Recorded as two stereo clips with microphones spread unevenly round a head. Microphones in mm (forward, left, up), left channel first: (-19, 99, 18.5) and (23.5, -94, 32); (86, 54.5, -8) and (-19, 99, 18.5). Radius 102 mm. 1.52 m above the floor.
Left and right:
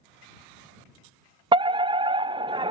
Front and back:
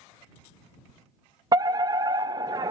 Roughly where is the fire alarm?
Behind right.